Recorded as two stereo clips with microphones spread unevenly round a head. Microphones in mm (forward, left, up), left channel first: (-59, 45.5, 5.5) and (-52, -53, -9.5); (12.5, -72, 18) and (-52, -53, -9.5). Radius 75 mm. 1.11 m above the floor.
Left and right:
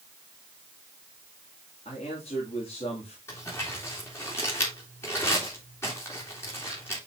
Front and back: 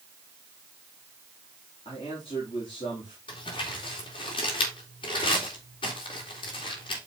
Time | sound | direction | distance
1.9 | a man speaking | 40° left | 3 m
3.3 | crumpling | 20° left | 2 m